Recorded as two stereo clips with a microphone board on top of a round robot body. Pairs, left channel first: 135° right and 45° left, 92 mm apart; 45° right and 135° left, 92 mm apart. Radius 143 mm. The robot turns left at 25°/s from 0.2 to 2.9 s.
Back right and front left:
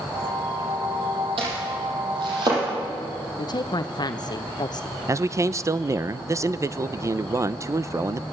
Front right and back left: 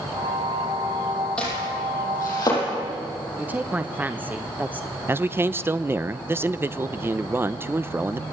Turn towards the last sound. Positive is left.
turn(degrees=85)